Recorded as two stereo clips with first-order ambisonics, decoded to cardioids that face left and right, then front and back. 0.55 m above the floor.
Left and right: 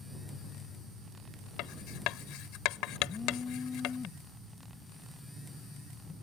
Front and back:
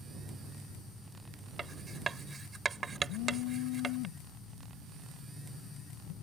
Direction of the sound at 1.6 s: 110° left.